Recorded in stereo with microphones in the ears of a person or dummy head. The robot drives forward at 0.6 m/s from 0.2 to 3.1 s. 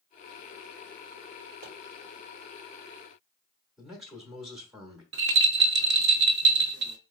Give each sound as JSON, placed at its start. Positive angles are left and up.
{"t": 1.6, "sound": "a pop", "side_deg": -80, "distance_m": 2.5}
{"t": 3.8, "sound": "a man speaking", "side_deg": -5, "distance_m": 1.0}
{"t": 5.1, "sound": "a rattle", "side_deg": -65, "distance_m": 0.5}